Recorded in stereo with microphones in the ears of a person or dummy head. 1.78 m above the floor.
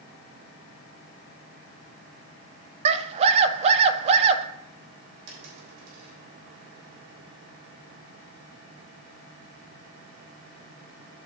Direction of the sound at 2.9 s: 35° right (ahead or behind).